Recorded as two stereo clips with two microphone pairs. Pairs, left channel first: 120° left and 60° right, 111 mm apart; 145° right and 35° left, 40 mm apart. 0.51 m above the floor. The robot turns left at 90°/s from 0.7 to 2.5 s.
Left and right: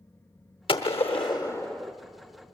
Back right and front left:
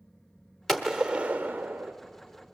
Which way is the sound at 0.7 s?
135° left.